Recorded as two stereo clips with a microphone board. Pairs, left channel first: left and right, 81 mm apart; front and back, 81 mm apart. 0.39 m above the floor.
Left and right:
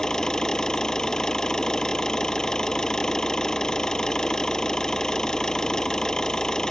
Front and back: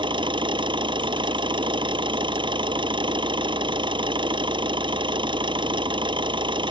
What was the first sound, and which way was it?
An engine running, 175° left.